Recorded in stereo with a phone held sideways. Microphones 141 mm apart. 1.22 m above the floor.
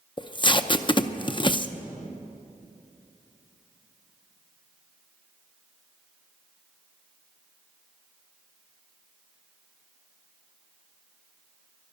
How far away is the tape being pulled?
About 0.6 m.